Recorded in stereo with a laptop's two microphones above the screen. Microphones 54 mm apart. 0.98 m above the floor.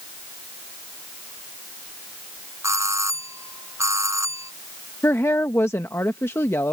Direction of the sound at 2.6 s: 65° right (ahead or behind).